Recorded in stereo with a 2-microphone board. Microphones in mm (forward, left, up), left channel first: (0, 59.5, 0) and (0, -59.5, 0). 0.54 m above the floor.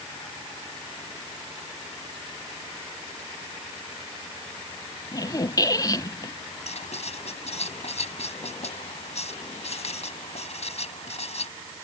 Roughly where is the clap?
No clap in this recording.